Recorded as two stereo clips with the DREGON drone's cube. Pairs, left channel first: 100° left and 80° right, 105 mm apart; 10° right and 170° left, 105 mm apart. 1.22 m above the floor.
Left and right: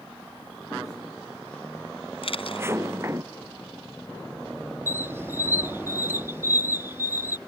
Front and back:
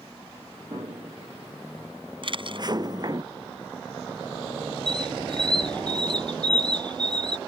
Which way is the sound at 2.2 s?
130° left.